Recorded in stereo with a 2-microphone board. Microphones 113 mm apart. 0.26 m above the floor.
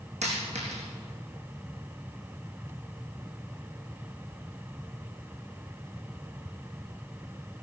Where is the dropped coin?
80° right, 4 m.